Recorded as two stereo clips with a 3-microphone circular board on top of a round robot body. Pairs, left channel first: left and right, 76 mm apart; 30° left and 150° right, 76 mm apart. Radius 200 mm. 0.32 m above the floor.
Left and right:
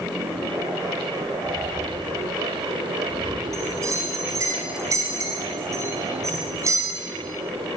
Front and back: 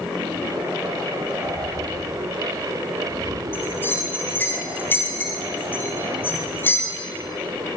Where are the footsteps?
155° right, 4.5 m; by 3.4 s 140° right, 5.5 m.